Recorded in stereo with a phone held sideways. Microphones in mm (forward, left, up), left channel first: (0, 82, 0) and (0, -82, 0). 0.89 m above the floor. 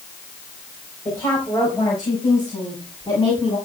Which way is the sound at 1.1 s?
15° left (ahead or behind).